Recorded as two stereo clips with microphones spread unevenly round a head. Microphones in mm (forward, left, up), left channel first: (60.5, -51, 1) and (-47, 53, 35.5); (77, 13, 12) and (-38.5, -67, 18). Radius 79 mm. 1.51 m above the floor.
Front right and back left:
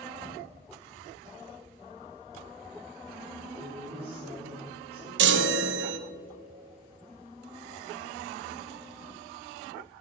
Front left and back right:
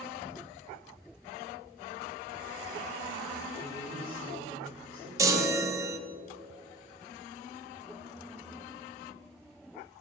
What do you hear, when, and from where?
3.6 s a woman speaking: 175° right, 4.5 m
5.2 s a chime: 145° left, 0.7 m